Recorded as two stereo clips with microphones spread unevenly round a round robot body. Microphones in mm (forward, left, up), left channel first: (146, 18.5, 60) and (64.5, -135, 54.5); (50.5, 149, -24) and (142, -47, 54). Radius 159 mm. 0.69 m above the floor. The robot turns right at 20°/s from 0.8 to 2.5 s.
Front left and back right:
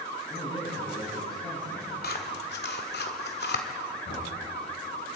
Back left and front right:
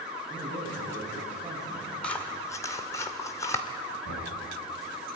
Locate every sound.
0.3 s a man speaking: 5° left, 9.5 m; by 1.9 s 30° left, 9.5 m
2.0 s scissors: 35° left, 2 m; by 3.6 s 45° left, 2 m
4.0 s knocking: 105° left, 6 m